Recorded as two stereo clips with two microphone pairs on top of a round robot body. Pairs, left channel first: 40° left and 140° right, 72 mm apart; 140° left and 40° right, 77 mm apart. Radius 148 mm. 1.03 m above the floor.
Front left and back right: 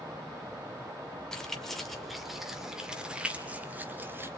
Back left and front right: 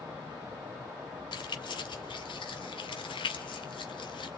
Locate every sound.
1.3 s keys jangling: 120° left, 3 m; by 4.3 s 160° left, 2.5 m